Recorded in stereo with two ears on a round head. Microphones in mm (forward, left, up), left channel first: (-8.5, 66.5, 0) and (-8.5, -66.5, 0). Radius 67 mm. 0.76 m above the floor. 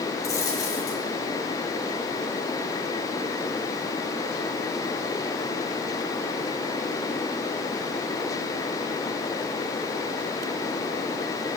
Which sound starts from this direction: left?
A dropped coin, at 0.2 s.